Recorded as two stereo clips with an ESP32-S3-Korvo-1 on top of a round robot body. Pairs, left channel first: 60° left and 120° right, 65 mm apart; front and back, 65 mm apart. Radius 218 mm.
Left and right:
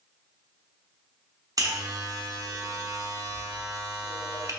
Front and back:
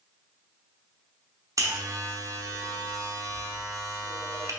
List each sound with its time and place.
1.6 s a buzzer: 145° right, 1.0 m